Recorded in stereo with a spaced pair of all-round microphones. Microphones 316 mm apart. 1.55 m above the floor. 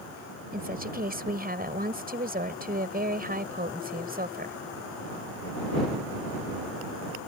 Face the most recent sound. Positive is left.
turn(degrees=-30)  # may be behind; listen again after turning